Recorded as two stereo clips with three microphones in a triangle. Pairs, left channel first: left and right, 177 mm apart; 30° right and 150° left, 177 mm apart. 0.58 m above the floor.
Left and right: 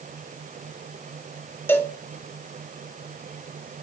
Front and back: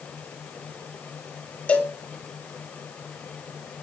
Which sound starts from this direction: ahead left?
A cowbell, at 1.7 s.